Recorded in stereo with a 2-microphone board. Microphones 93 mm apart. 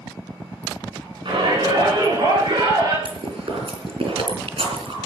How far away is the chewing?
About 4.5 m.